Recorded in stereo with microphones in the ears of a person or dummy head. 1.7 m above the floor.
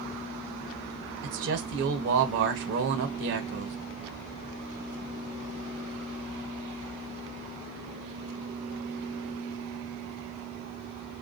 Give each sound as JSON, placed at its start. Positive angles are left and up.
{"t": 1.2, "sound": "a man speaking", "side_deg": -55, "distance_m": 1.0}